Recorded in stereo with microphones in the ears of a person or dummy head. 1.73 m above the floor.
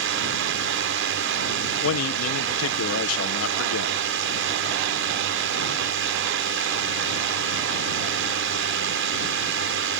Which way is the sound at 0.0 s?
60° right (ahead or behind).